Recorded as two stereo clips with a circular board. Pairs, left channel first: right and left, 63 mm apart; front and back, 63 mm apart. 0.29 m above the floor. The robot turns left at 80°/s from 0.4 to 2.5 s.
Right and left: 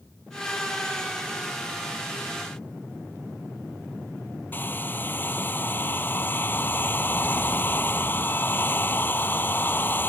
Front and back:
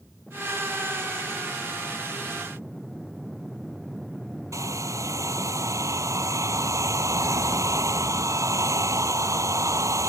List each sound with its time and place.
4.5 s a hair dryer: 145° right